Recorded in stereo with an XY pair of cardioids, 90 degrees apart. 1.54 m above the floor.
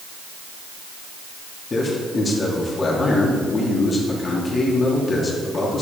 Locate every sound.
1.7 s a man speaking: 40° left, 3.5 m